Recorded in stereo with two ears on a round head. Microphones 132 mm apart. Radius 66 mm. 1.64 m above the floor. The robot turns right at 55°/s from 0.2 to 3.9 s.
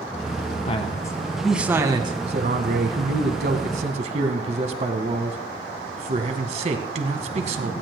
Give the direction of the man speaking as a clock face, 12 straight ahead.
7 o'clock.